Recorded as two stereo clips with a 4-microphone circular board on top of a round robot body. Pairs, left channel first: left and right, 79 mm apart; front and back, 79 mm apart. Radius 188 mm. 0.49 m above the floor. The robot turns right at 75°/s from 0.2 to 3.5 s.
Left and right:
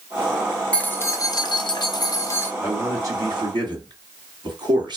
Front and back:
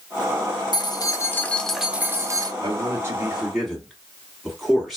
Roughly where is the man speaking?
Behind.